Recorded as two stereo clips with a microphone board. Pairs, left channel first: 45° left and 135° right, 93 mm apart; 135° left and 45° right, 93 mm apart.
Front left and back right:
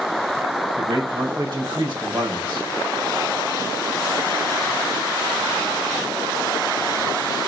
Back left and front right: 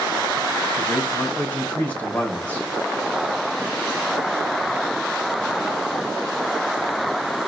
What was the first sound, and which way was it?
A man speaking, 155° right.